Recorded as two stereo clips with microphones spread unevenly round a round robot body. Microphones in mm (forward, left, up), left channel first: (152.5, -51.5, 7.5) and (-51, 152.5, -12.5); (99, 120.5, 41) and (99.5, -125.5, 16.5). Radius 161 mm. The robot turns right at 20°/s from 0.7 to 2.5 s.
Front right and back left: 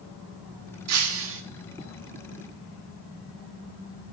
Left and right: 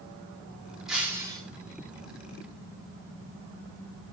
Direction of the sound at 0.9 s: Straight behind.